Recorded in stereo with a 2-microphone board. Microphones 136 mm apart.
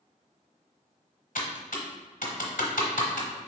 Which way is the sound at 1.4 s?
85° left.